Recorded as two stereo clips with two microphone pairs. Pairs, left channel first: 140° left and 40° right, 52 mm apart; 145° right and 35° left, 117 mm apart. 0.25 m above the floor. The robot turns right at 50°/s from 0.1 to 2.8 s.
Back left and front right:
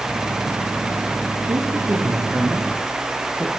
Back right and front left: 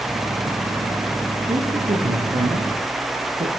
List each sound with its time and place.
1.5 s a man speaking: 20° right, 5.5 m; by 3.5 s 45° left, 5.5 m